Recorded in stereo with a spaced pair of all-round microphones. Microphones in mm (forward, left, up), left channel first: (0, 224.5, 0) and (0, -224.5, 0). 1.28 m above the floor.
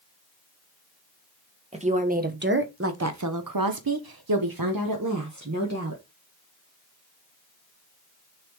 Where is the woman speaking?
15° right (ahead or behind), 1.5 m; by 6.0 s 35° right (ahead or behind), 1.6 m.